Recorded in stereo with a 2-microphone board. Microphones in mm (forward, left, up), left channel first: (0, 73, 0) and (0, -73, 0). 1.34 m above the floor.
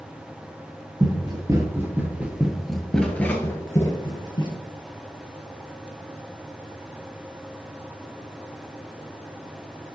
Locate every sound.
1.0 s running footsteps: 30° right (ahead or behind), 1.7 m; by 4.6 s 30° left (ahead or behind), 1.9 m